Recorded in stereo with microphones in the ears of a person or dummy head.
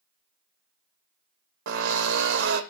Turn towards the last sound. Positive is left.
turn(degrees=-60)  # may be behind; listen again after turning